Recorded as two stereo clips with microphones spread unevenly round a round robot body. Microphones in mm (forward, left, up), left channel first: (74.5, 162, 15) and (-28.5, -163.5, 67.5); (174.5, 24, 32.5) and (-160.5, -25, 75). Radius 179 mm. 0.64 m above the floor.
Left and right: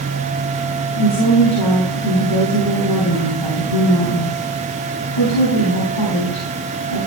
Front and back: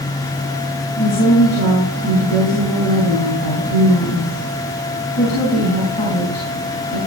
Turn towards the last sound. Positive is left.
turn(degrees=75)